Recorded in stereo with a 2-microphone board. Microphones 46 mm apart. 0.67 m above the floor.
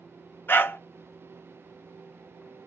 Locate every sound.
0.5 s a dog barking: 50° left (ahead or behind), 0.6 m